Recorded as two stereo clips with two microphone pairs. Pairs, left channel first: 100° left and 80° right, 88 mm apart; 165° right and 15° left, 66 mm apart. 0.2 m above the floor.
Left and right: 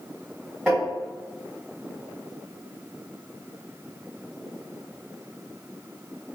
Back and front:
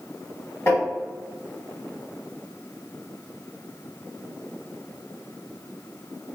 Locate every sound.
0.7 s tapping: 170° right, 2.0 m